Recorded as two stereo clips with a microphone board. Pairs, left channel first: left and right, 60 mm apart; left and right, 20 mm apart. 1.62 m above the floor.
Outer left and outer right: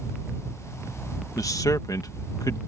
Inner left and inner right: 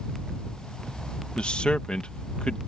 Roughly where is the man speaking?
Left.